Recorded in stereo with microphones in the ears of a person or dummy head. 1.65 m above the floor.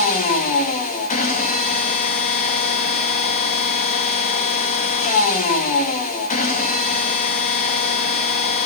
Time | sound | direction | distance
0.0 | a machine running | 35° left (ahead or behind) | 1.5 m